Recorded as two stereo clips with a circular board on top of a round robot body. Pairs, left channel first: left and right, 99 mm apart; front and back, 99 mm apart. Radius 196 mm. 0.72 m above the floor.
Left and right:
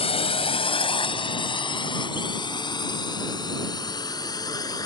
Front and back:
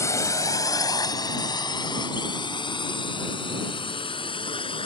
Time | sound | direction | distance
0.0 | a drone | 65° left | ?